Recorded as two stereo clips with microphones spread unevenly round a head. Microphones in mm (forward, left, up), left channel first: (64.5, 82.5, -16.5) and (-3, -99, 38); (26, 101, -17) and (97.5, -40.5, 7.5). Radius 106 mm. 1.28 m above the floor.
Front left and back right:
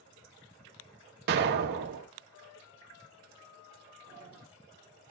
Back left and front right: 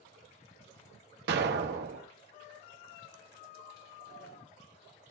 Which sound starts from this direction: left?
A sliding door, at 4.1 s.